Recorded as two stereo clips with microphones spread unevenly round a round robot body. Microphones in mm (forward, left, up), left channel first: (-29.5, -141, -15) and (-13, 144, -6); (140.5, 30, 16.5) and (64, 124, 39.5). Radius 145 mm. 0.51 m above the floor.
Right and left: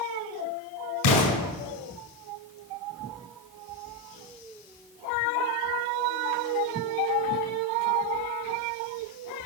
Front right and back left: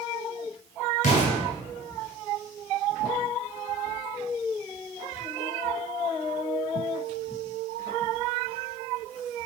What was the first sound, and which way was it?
An explosion, 75° right.